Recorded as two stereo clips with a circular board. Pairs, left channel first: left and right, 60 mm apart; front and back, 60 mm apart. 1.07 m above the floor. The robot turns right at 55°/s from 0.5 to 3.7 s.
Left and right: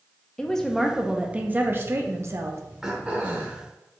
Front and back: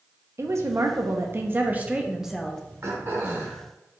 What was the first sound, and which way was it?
A woman speaking, 165° left.